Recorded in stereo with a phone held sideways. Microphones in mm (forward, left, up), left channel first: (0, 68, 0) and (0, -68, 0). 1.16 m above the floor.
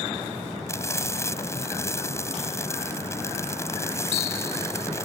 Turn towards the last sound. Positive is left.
turn(degrees=20)  # may be behind; listen again after turning